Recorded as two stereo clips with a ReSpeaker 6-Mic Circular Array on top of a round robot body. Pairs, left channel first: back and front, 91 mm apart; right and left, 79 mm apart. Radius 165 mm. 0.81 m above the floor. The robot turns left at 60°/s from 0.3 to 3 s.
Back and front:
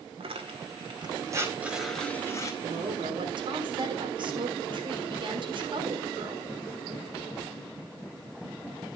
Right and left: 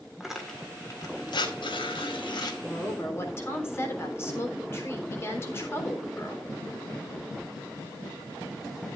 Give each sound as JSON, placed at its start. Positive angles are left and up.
{"t": 0.2, "sound": "tearing paper", "azimuth_deg": 5, "distance_m": 2.0}
{"t": 2.6, "sound": "a woman speaking", "azimuth_deg": -5, "distance_m": 3.5}